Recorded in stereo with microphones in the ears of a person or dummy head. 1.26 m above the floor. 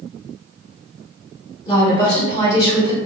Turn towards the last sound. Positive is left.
turn(degrees=30)  # may be behind; listen again after turning